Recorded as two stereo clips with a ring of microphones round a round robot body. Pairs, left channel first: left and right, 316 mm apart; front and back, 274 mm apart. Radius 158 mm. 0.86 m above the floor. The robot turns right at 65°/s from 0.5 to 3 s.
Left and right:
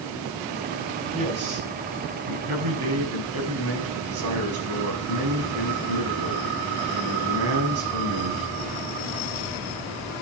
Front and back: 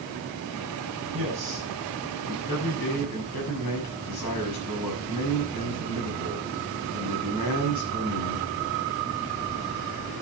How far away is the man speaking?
About 6 m.